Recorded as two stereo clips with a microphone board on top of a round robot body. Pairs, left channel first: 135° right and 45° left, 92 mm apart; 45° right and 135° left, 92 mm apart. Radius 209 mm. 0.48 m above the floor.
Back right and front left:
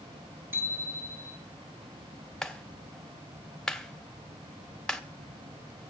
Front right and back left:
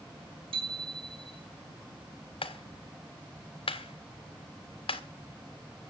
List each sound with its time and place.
0.5 s a bicycle bell: 110° left, 7.5 m
2.4 s a clap: 55° right, 2 m